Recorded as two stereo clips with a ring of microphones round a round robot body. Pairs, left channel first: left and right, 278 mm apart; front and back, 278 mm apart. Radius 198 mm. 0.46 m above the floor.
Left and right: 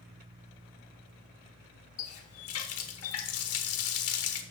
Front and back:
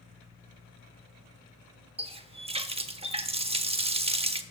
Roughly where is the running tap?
Behind left.